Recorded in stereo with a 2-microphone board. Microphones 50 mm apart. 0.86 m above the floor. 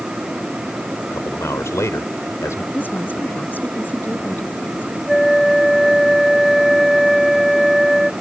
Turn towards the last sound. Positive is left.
turn(degrees=0)  # may be behind; listen again after turning